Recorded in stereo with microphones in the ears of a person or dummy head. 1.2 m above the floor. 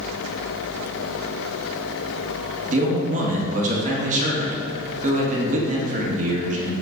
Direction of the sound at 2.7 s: 35° right (ahead or behind).